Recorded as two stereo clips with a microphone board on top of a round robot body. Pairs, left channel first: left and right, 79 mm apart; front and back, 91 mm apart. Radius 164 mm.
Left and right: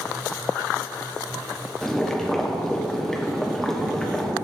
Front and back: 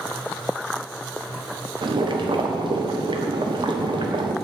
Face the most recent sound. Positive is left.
turn(degrees=175)